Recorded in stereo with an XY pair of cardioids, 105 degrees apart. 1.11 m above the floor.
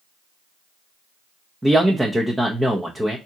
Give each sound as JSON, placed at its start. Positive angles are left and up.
{"t": 1.6, "sound": "a man speaking", "azimuth_deg": -10, "distance_m": 0.8}